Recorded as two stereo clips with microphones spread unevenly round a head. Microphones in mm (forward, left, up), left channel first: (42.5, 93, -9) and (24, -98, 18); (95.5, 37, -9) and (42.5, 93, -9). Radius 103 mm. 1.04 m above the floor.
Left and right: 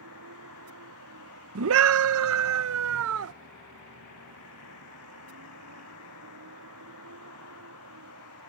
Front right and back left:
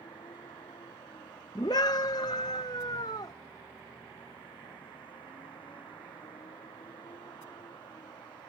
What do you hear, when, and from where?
0.0 s a vehicle: 105° right
1.6 s a scream: 105° right